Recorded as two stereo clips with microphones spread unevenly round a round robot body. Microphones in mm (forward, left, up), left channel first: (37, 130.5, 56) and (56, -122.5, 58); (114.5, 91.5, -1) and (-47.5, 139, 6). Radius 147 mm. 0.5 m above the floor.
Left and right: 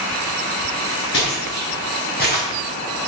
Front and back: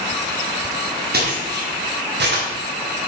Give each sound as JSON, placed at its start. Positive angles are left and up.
{"t": 1.1, "sound": "footsteps", "azimuth_deg": 145, "distance_m": 5.5}